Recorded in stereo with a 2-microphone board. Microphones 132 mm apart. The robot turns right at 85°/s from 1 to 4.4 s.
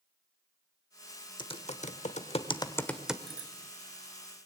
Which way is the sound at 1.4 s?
35° left (ahead or behind).